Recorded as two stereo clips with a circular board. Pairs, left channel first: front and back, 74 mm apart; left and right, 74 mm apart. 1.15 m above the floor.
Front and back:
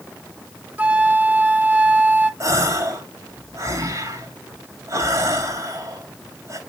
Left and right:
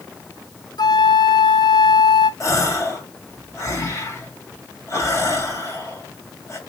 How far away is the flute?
About 0.7 m.